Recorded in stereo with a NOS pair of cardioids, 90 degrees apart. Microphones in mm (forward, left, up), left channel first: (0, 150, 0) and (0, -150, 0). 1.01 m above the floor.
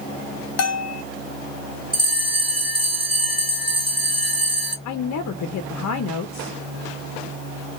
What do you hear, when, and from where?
0.6 s a bell: 60° left, 0.6 m
1.9 s a bell: 15° right, 2 m
4.8 s a woman speaking: 65° left, 0.6 m